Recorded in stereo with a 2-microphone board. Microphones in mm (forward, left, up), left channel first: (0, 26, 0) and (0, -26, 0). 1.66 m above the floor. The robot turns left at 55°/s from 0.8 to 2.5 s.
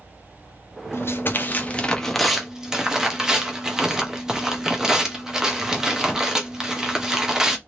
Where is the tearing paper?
70° left, 0.6 m; by 7.6 s 15° right, 0.6 m.